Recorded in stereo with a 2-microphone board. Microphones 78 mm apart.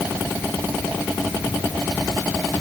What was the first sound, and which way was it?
Only background noise.